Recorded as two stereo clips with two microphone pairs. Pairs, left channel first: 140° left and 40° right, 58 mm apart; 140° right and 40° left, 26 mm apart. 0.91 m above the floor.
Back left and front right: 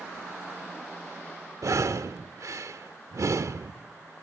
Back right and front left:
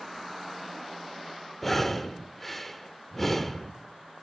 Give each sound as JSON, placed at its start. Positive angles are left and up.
{"t": 1.6, "sound": "breathing", "azimuth_deg": -60, "distance_m": 1.0}